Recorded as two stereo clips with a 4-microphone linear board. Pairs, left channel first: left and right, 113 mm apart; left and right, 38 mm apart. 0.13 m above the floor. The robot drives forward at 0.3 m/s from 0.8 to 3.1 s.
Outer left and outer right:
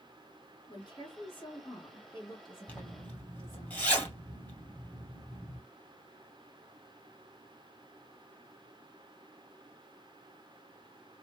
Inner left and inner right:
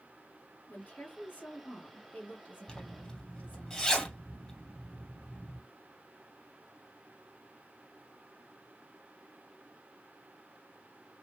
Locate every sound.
0.7 s a woman speaking: 40° left (ahead or behind), 1.9 m; by 3.7 s 35° left (ahead or behind), 1.9 m
2.7 s a zipper: 15° left (ahead or behind), 1.8 m